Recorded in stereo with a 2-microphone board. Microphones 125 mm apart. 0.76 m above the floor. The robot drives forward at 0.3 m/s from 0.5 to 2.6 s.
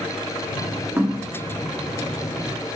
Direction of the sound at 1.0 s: 15° right (ahead or behind).